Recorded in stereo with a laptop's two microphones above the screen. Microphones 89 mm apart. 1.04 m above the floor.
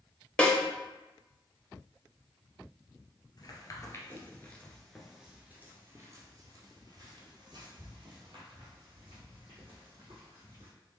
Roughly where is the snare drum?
Centre.